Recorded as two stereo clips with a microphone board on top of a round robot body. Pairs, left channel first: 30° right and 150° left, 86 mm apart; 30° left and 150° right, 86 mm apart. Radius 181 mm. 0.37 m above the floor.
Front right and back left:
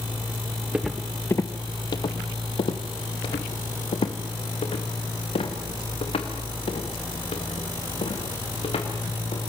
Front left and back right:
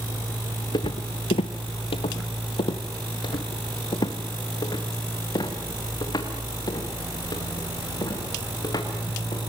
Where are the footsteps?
70° left, 0.6 m; by 9.4 s 20° right, 5.5 m.